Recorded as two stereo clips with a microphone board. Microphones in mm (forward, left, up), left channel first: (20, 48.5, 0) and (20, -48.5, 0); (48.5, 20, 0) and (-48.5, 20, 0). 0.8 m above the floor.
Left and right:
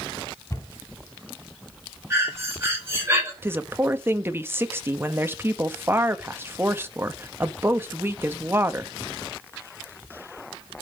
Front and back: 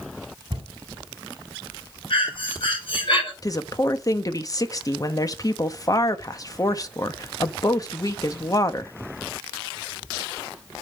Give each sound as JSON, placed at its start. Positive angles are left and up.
{"t": 0.5, "sound": "a cupboard door", "azimuth_deg": 145, "distance_m": 3.0}
{"t": 2.1, "sound": "breathing", "azimuth_deg": -30, "distance_m": 6.5}
{"t": 3.4, "sound": "a woman speaking", "azimuth_deg": -35, "distance_m": 1.0}